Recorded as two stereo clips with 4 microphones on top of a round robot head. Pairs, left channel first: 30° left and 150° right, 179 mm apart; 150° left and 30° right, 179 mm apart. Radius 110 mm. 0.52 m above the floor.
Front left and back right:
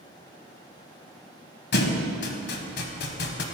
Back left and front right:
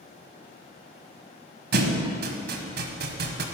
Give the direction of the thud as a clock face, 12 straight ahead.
12 o'clock.